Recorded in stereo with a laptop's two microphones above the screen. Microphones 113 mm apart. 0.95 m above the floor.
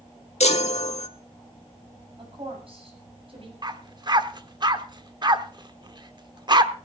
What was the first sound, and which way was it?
A chime, 65° left (ahead or behind).